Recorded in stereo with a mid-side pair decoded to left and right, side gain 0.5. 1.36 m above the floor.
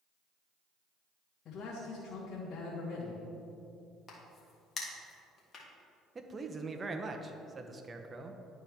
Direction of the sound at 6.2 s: 30° right.